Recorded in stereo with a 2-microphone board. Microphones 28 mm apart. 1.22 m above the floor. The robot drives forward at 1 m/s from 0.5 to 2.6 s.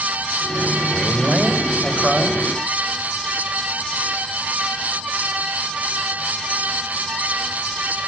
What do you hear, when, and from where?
0.9 s a man speaking: 15° right (ahead or behind), 4 m; by 2.4 s 10° right (ahead or behind), 5.5 m